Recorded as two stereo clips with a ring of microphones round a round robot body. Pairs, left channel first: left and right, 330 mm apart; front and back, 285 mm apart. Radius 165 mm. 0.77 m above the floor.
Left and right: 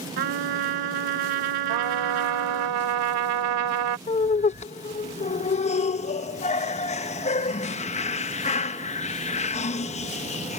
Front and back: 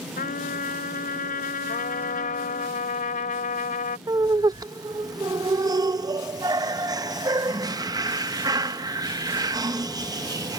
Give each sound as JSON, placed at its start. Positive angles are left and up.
{"t": 0.2, "sound": "a trumpet", "azimuth_deg": -70}
{"t": 1.7, "sound": "a trumpet", "azimuth_deg": -70}
{"t": 4.1, "sound": "laughter", "azimuth_deg": 125}